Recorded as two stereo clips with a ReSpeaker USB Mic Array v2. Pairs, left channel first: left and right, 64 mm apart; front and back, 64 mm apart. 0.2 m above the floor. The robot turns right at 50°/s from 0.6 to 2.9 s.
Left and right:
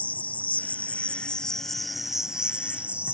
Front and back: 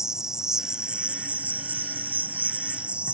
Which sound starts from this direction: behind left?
An insect, at 0.0 s.